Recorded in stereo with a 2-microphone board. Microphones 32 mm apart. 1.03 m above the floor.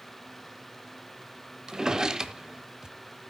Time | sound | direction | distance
1.7 | a drawer | 20° right (ahead or behind) | 0.9 m